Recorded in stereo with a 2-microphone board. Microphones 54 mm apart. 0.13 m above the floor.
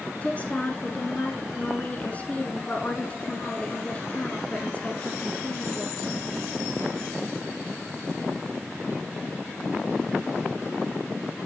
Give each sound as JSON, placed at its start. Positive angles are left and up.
{"t": 0.2, "sound": "a woman speaking", "side_deg": 30, "distance_m": 1.3}